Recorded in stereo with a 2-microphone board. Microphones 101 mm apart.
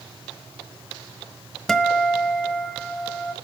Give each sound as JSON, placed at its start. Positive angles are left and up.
{"t": 1.7, "sound": "a guitar", "side_deg": 5, "distance_m": 1.1}